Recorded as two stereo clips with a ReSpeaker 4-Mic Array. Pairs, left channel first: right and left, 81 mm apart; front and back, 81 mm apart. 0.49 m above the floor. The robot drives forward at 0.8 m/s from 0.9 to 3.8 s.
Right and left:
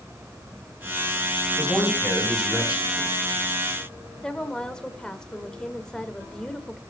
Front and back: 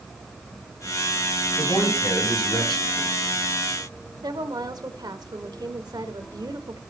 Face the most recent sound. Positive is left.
turn(degrees=-170)